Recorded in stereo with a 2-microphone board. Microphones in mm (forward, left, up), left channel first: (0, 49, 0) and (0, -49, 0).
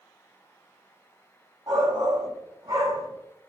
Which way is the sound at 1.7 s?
40° right (ahead or behind).